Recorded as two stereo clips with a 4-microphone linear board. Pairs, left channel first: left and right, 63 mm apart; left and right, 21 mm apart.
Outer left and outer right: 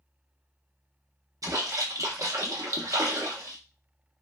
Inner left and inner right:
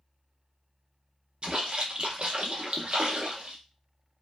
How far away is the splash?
About 0.7 m.